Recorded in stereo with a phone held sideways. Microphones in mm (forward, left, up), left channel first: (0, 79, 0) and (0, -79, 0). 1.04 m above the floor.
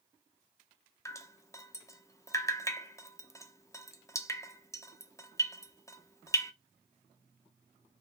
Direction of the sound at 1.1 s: 20° left (ahead or behind).